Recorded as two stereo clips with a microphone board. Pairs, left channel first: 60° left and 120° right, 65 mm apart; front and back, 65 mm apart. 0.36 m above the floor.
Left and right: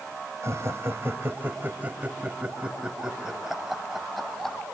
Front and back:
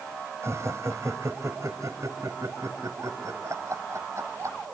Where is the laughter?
150° right, 2 m; by 4.6 s 145° left, 3 m.